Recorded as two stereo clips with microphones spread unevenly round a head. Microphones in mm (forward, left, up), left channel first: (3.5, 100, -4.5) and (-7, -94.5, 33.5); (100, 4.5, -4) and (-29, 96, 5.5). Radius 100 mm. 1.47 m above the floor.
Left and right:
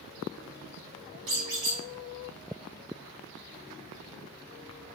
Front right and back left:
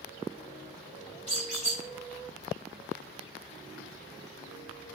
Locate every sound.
1.3 s a squeak: 100° right, 1.7 m